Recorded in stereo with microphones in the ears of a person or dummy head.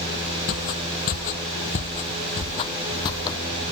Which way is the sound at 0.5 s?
50° left (ahead or behind).